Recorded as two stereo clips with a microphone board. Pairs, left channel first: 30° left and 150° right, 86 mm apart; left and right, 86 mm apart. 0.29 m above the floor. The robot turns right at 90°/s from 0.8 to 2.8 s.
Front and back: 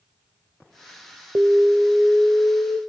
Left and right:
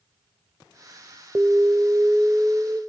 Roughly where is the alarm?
Behind right.